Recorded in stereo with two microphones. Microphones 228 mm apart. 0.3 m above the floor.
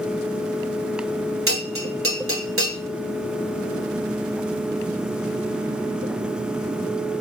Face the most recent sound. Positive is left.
turn(degrees=-65)  # may be behind; listen again after turning